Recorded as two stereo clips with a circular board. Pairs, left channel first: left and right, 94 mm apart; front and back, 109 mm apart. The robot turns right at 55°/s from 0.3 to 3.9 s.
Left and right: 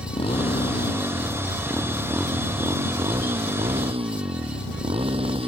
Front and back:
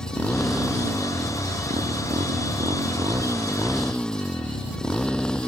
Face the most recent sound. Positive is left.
turn(degrees=-80)